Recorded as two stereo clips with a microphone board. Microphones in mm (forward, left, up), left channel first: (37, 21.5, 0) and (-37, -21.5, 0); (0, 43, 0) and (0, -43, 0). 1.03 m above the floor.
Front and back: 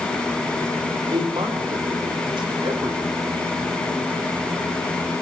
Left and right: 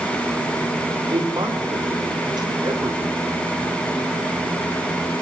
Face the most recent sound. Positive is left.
turn(degrees=-125)